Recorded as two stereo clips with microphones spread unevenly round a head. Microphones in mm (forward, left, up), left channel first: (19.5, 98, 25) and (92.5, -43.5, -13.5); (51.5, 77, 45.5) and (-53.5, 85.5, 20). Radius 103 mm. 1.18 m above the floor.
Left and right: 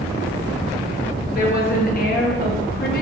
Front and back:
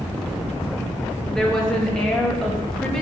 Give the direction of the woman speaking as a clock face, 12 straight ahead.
9 o'clock.